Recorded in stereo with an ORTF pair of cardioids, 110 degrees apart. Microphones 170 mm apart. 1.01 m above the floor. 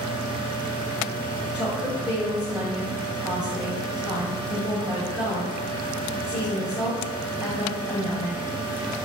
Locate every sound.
0.0 s a fan: 30° right, 0.8 m
1.5 s a woman speaking: 5° right, 1.7 m